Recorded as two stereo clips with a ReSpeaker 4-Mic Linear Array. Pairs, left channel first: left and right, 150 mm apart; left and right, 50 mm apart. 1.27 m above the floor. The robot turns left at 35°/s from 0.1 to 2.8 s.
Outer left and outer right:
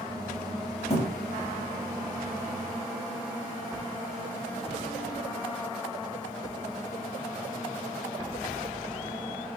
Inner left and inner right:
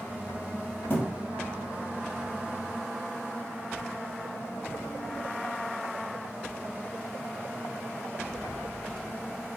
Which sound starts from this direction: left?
A thud, at 0.9 s.